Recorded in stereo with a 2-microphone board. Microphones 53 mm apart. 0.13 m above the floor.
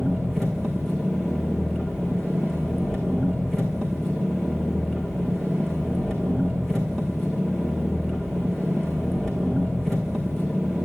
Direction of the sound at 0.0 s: 10° left (ahead or behind).